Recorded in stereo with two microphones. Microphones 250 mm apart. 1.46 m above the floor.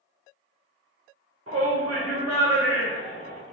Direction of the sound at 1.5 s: 65° right (ahead or behind).